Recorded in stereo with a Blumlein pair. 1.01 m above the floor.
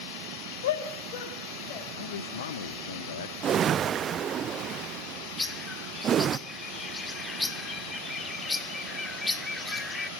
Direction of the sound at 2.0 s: 65° left.